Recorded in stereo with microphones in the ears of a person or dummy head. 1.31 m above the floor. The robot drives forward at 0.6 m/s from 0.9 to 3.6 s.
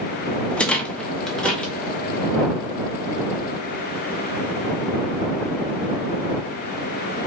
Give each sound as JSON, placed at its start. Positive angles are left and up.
{"t": 0.5, "sound": "a rattle", "side_deg": 5, "distance_m": 0.7}